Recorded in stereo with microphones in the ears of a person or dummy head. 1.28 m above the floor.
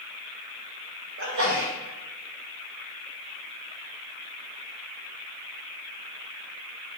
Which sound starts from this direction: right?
A sneeze, at 1.2 s.